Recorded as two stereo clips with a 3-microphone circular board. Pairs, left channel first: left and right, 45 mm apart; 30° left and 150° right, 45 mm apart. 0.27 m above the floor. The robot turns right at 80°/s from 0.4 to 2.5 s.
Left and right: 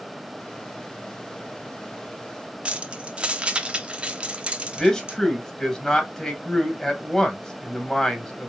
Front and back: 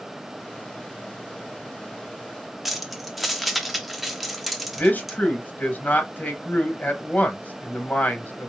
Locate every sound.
2.6 s keys jangling: 70° right, 0.7 m
4.8 s a man speaking: 20° left, 1.4 m